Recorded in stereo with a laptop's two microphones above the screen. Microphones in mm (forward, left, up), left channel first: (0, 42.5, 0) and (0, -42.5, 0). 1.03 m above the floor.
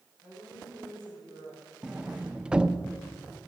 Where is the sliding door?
10° right (ahead or behind), 0.6 m.